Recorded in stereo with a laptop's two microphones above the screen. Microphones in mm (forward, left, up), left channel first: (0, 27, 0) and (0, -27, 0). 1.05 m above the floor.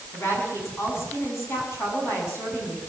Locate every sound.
0.1 s a woman speaking: 45° left (ahead or behind), 8.5 m